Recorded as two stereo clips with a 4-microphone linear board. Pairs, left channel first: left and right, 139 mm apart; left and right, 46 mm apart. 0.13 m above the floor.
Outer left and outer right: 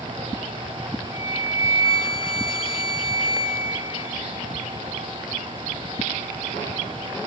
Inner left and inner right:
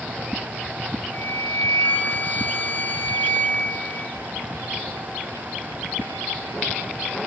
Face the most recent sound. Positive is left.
turn(degrees=40)  # may be behind; listen again after turning